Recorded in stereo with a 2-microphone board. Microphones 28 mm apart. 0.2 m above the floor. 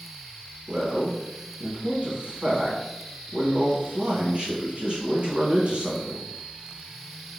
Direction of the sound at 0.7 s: 40° right (ahead or behind).